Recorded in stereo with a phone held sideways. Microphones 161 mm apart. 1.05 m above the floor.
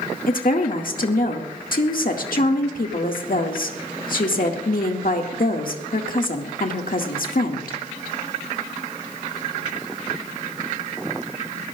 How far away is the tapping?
I don't hear tapping.